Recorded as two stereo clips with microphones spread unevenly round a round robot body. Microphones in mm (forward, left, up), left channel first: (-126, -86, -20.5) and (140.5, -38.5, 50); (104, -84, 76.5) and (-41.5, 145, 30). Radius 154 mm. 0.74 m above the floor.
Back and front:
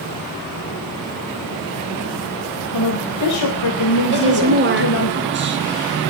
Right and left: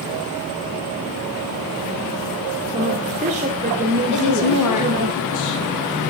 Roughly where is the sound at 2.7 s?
Behind.